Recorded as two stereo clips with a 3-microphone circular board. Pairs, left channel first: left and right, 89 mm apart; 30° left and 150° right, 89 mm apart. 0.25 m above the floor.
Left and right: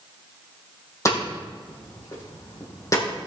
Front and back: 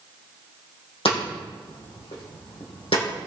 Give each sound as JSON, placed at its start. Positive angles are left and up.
{"t": 1.1, "sound": "hammering", "azimuth_deg": 35, "distance_m": 4.5}